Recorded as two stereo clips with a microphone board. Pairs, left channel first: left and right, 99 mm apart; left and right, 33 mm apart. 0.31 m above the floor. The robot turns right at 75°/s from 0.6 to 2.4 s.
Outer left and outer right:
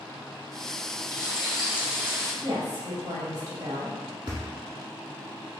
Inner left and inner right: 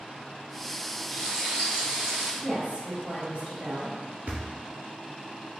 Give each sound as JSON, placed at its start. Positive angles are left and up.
{"t": 1.1, "sound": "frying", "azimuth_deg": 145, "distance_m": 1.4}
{"t": 2.4, "sound": "a woman speaking", "side_deg": -35, "distance_m": 1.7}
{"t": 4.3, "sound": "a thud", "side_deg": -50, "distance_m": 1.3}